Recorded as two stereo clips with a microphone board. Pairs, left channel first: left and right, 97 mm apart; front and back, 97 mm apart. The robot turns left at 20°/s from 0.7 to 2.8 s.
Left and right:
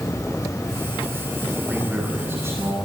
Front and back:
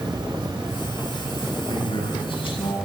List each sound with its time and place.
0.0 s an insect: 145° left, 2.5 m; by 2.9 s 100° left, 2.5 m
1.7 s a man speaking: 15° right, 9.5 m; by 2.8 s 35° right, 9.5 m